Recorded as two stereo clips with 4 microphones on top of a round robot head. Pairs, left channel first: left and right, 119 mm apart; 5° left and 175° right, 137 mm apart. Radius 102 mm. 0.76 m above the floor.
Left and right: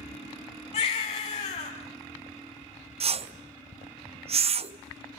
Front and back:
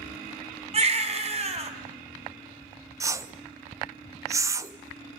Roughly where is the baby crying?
Behind left.